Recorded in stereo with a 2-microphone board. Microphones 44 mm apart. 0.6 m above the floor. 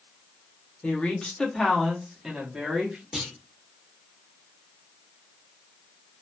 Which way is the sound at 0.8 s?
25° left (ahead or behind).